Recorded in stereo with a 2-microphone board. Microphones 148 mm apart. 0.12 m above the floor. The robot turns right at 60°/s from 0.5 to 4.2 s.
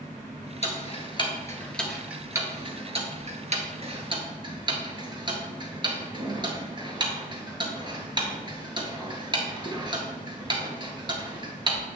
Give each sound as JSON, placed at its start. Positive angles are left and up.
{"t": 0.6, "sound": "ticking", "side_deg": 50, "distance_m": 1.6}